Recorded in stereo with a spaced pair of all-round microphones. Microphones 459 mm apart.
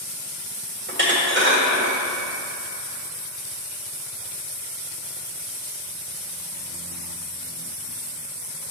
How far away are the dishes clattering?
About 1.3 m.